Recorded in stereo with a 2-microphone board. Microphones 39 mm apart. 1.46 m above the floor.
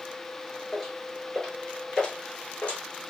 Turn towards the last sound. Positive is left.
turn(degrees=35)  # may be behind; listen again after turning